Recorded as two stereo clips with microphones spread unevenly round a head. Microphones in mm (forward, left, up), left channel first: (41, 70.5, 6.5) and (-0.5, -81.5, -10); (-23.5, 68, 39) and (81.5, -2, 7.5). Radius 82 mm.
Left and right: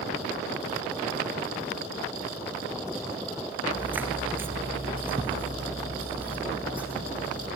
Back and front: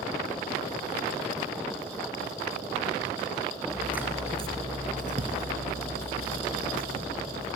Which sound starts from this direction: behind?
Footsteps, at 3.7 s.